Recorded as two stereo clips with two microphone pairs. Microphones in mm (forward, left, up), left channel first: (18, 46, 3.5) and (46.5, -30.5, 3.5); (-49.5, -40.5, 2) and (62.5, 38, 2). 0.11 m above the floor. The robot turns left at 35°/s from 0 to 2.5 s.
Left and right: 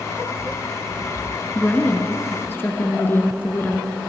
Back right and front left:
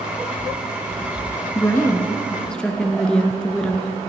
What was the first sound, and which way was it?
A woman speaking, 170° left.